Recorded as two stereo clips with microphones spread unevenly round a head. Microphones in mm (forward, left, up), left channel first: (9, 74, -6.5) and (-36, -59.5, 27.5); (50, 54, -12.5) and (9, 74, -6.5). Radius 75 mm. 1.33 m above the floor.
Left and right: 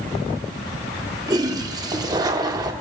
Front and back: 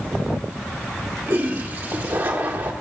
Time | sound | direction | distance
1.3 | a toilet flushing | 160° right | 1.4 m